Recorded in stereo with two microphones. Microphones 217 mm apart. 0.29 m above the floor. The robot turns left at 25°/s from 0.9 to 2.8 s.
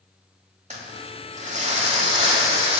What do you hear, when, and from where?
0.7 s crumpling: 75° right, 1.8 m; by 2.8 s 120° right, 1.8 m